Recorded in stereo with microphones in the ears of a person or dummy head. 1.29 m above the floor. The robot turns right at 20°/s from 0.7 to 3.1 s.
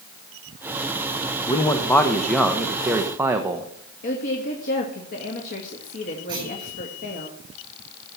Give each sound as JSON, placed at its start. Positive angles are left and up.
{"t": 1.5, "sound": "a man speaking", "azimuth_deg": 150, "distance_m": 1.1}
{"t": 4.0, "sound": "a woman speaking", "side_deg": 40, "distance_m": 2.0}
{"t": 6.3, "sound": "a clunk", "side_deg": -15, "distance_m": 8.5}